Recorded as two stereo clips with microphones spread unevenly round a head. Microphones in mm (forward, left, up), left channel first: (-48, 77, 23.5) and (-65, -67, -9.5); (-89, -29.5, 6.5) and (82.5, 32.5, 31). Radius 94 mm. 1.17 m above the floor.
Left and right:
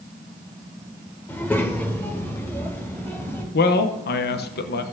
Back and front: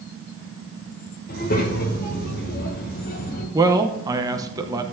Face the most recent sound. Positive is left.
turn(degrees=95)